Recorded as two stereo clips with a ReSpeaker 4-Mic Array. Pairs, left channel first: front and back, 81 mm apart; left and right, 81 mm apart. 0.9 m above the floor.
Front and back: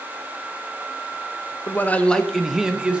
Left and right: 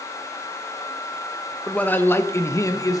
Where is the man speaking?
30° left, 0.8 m; by 3.0 s 110° left, 1.1 m.